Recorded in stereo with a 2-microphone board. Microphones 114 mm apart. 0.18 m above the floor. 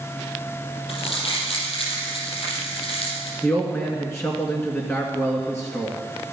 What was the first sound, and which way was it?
Crumpling, 55° left (ahead or behind).